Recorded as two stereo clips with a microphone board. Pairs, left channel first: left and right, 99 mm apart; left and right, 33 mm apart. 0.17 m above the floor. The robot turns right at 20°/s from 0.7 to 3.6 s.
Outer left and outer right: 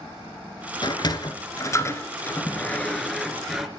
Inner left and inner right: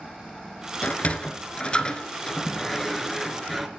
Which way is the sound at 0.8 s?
45° left (ahead or behind).